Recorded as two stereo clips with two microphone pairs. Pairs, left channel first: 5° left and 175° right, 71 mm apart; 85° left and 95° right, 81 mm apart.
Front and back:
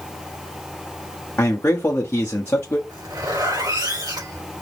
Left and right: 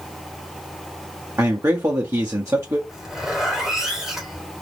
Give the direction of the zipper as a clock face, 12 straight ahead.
6 o'clock.